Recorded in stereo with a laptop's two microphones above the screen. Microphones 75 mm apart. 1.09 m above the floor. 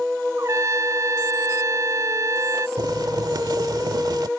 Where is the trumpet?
45° right (ahead or behind).